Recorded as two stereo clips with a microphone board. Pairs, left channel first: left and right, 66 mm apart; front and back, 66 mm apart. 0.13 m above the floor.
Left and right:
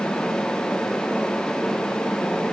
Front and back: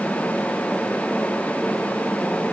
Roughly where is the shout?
I don't hear a shout.